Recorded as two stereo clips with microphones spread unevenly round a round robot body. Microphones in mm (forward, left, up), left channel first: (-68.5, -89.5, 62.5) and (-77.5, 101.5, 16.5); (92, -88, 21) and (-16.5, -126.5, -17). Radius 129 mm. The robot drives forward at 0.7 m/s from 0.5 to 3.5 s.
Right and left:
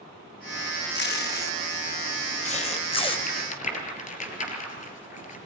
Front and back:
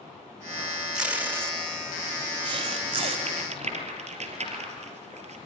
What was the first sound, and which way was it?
Tape being pulled, 100° right.